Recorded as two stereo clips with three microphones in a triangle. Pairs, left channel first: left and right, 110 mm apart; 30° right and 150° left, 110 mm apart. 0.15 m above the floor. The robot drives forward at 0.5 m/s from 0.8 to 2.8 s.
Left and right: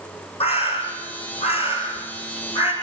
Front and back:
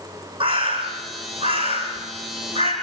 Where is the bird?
120° left, 7 m; by 2.7 s 125° left, 7.5 m.